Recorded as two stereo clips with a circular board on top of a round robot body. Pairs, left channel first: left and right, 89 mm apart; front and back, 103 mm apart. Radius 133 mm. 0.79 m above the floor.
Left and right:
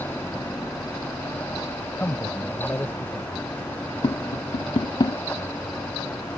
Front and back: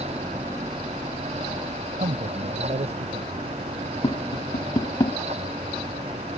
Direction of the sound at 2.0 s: 165° left.